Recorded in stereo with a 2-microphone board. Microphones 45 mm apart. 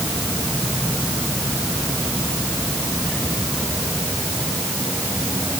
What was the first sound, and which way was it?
Only background noise.